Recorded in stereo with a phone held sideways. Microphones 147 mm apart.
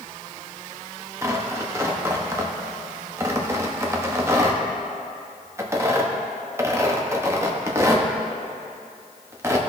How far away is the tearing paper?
About 0.9 m.